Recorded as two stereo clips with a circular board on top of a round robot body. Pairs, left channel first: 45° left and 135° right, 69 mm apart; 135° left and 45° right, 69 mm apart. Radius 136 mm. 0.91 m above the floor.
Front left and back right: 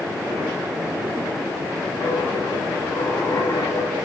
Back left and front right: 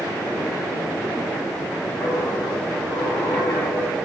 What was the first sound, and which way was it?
A dropped coin, 65° left.